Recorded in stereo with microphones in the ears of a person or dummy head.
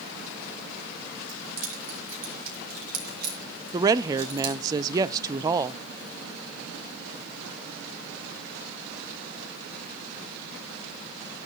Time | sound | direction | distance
1.3 | keys jangling | 45° right (ahead or behind) | 6.5 m
3.7 | a woman speaking | 20° right (ahead or behind) | 0.6 m